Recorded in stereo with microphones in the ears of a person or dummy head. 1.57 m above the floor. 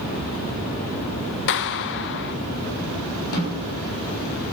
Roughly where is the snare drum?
Left.